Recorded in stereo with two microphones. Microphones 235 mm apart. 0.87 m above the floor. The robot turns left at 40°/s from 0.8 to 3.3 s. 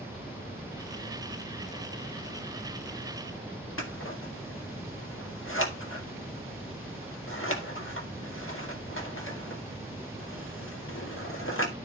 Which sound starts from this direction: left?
Scissors, at 3.8 s.